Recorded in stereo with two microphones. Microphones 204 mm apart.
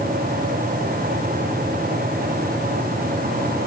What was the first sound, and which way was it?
Only background noise.